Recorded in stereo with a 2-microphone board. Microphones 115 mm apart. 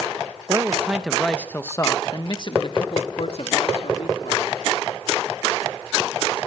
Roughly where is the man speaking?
Right.